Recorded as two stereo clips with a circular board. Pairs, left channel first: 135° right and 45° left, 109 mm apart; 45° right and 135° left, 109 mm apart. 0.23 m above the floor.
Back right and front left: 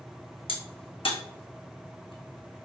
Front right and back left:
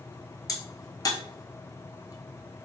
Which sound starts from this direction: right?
A crack, at 0.5 s.